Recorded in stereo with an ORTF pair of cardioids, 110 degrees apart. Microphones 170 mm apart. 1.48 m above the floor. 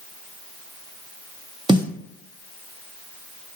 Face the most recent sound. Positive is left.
turn(degrees=-25)